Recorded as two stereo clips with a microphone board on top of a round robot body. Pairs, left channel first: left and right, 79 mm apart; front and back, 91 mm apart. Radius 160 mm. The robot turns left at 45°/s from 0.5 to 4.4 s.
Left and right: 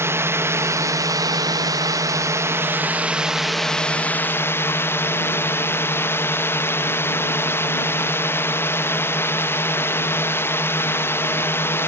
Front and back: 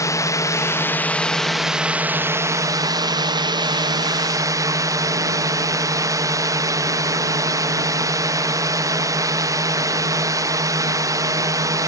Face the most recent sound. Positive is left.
turn(degrees=140)